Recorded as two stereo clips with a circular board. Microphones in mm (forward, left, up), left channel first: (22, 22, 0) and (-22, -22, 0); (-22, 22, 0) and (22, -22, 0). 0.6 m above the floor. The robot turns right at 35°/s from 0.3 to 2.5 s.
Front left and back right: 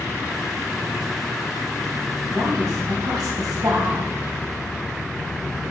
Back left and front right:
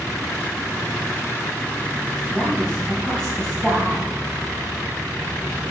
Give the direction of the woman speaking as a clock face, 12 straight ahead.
5 o'clock.